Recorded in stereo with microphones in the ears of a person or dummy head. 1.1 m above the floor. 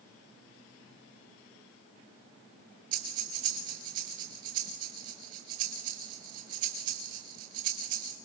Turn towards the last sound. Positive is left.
turn(degrees=-45)  # may be behind; listen again after turning